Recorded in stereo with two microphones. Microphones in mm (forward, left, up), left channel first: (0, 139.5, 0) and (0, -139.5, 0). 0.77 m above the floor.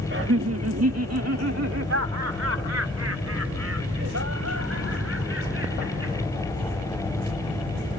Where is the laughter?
45° right (ahead or behind); by 6.2 s 55° right (ahead or behind).